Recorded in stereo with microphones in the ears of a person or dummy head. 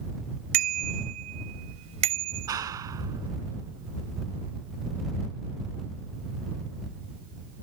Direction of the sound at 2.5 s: 20° right (ahead or behind).